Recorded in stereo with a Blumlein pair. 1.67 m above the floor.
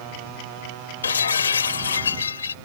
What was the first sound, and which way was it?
Breaking glass, 70° left.